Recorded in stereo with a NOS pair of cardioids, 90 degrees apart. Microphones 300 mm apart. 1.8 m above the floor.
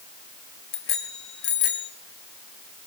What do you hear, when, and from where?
0.7 s a bicycle bell: 65° left, 3 m; by 1.9 s 80° left, 3 m